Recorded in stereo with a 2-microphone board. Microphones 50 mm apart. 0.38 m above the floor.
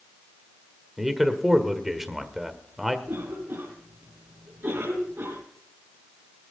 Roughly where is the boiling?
I don't hear boiling.